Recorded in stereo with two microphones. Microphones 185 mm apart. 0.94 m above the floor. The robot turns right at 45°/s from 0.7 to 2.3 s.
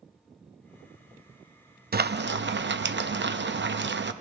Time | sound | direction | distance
1.9 | frying | 55° right (ahead or behind) | 0.6 m